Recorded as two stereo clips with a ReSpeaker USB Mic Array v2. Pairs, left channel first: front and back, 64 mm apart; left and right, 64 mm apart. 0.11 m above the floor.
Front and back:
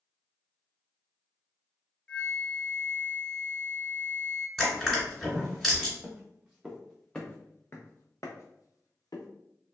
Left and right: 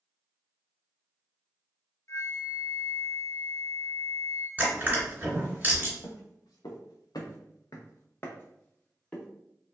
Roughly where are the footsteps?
Left.